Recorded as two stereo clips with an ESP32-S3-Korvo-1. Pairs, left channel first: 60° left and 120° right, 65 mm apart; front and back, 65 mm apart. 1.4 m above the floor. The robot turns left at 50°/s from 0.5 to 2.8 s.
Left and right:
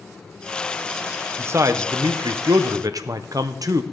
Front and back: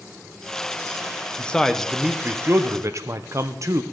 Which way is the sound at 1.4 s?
70° right.